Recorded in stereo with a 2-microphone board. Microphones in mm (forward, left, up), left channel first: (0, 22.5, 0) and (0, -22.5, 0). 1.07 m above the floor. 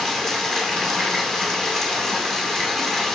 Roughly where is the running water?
Centre.